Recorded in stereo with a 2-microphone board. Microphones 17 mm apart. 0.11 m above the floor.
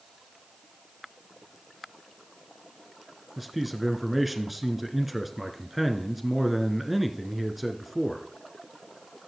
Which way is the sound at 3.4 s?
10° right (ahead or behind).